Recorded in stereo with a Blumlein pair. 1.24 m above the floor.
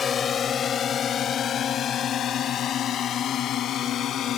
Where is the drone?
20° left; by 4.4 s 30° left.